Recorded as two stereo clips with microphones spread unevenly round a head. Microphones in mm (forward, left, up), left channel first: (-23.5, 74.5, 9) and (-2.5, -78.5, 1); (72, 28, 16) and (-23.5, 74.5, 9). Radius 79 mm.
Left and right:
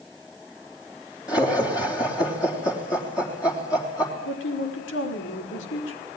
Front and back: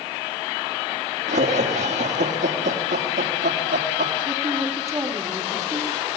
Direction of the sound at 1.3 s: 160° left.